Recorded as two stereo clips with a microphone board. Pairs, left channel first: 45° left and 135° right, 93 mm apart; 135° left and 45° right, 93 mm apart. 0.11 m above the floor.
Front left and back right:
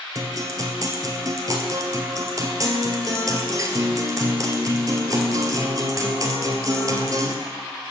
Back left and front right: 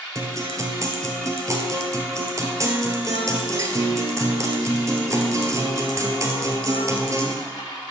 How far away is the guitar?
About 1.1 m.